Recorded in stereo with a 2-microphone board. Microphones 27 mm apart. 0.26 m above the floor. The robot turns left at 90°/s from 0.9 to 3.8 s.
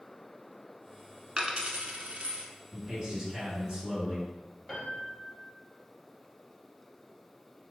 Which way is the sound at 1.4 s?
20° right (ahead or behind).